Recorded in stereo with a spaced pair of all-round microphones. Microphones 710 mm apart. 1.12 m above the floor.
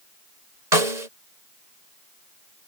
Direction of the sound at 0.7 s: 70° right (ahead or behind).